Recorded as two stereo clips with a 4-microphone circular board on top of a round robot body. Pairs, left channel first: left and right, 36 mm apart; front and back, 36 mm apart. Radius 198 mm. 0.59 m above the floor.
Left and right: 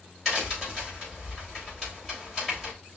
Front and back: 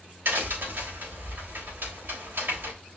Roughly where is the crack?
Behind.